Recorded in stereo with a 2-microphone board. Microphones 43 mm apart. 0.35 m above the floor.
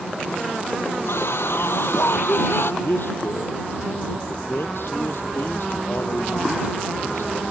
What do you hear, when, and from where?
1.1 s a scream: 70° left (ahead or behind); by 2.7 s 65° left (ahead or behind)
2.8 s a man speaking: 65° left (ahead or behind)